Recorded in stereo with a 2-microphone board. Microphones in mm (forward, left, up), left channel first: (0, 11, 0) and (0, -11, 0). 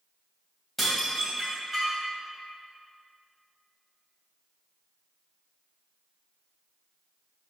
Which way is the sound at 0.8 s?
Centre (ahead or behind).